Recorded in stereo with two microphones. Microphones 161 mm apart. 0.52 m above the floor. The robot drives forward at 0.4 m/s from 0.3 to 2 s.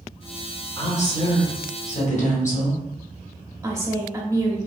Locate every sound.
0.8 s a woman speaking: 40° left (ahead or behind), 1.3 m; by 2.8 s 50° left (ahead or behind), 1.1 m
3.6 s a woman speaking: 15° right (ahead or behind), 0.7 m